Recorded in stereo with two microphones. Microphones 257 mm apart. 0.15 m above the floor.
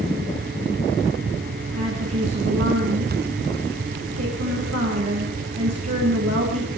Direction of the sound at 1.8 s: 70° right (ahead or behind).